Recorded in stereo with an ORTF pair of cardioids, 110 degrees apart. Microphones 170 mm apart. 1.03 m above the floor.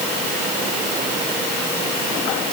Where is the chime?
No chime in this recording.